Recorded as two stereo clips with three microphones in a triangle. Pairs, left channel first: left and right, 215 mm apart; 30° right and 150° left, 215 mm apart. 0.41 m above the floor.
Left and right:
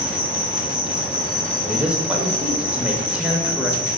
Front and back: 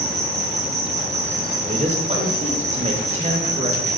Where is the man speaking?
170° right, 0.9 m.